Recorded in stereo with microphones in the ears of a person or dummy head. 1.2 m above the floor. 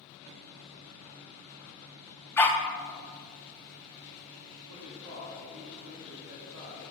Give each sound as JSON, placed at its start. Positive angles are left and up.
{"t": 2.4, "sound": "a dog barking", "side_deg": 10, "distance_m": 0.8}
{"t": 4.7, "sound": "a man speaking", "side_deg": -80, "distance_m": 3.5}